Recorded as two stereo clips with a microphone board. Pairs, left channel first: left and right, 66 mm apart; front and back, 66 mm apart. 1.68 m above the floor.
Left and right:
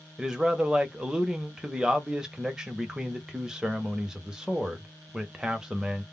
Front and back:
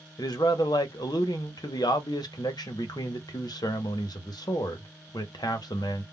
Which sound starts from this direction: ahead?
A man speaking, at 0.2 s.